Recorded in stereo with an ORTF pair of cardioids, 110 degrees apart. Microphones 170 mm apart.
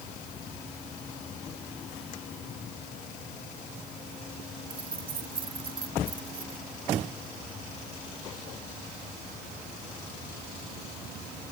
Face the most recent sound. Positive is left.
turn(degrees=-30)